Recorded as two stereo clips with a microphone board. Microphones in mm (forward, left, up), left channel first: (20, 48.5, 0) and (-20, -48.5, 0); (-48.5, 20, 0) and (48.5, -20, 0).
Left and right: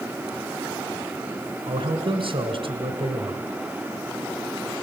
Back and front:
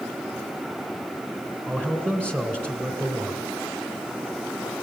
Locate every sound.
1.7 s a man speaking: 90° right, 3 m